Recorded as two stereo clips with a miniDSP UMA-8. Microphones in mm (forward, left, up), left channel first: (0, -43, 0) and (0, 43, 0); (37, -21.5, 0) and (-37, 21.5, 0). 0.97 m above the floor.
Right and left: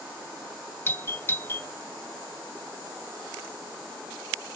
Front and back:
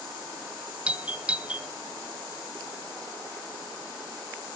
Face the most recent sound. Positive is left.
turn(degrees=-140)